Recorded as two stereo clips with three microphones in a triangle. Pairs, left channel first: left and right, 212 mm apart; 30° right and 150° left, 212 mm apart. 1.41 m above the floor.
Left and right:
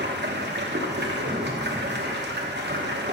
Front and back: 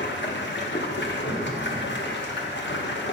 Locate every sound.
0.0 s running water: 60° right, 0.9 m
1.2 s an explosion: 50° right, 1.5 m